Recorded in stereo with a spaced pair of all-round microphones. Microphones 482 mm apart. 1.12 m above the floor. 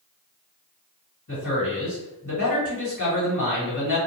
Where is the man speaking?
40° left (ahead or behind), 1.6 m.